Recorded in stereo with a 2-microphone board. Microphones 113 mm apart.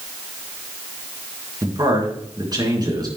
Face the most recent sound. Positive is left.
turn(degrees=-35)  # may be behind; listen again after turning